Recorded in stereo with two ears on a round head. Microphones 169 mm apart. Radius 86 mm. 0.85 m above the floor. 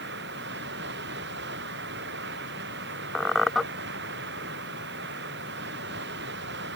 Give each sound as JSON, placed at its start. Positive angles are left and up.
{"t": 0.0, "sound": "running water", "side_deg": -70}
{"t": 3.1, "sound": "a squeak", "side_deg": 0}